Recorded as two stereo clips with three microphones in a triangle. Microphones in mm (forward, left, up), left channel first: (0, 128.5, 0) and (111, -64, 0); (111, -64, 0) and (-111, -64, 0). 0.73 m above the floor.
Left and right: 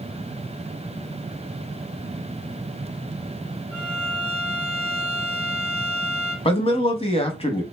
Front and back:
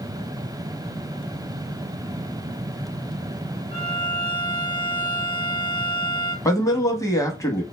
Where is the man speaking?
70° left, 0.7 m.